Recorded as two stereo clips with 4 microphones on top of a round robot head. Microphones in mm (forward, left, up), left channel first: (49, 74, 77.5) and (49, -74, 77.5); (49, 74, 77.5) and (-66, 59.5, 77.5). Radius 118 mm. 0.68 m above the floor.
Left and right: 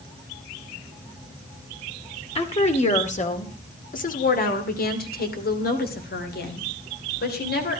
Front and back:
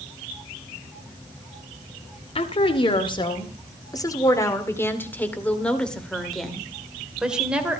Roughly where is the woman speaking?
Ahead left.